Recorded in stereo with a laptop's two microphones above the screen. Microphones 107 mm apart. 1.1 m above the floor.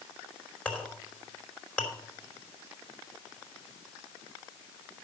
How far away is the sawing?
No sawing in this recording.